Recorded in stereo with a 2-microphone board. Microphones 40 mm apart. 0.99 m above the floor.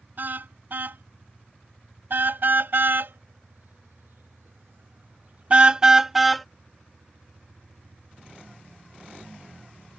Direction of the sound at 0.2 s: 50° right (ahead or behind).